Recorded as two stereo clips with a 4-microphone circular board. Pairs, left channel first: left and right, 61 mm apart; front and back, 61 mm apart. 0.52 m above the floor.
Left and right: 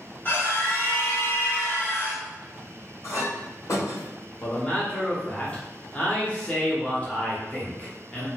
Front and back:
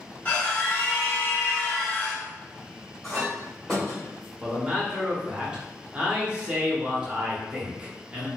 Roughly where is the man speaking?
Behind left.